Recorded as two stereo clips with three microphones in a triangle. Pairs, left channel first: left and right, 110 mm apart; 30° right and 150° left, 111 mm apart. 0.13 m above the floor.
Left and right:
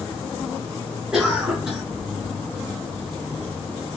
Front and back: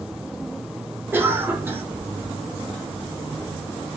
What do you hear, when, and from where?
1.1 s a cough: 170° right, 1.3 m